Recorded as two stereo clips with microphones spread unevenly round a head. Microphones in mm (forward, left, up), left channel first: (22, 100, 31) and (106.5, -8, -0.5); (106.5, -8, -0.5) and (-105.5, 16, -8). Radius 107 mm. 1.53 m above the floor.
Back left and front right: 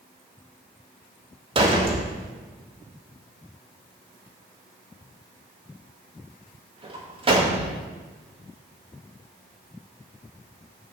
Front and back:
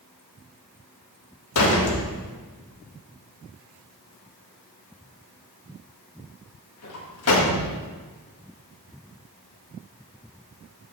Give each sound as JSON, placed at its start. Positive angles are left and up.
{"t": 1.6, "sound": "a door slam", "azimuth_deg": 0, "distance_m": 1.8}